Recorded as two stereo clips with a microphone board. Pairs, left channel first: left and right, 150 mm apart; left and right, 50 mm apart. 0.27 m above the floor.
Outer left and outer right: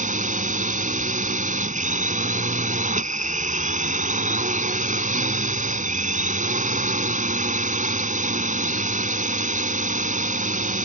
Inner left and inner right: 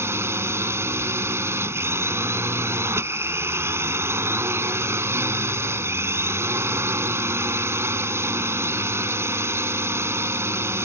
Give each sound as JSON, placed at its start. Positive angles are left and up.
{"t": 0.0, "sound": "a drone", "side_deg": -60}